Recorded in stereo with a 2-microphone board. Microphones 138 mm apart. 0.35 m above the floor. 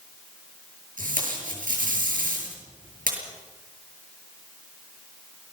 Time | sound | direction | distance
1.0 | tape being pulled | 80° right | 7.5 m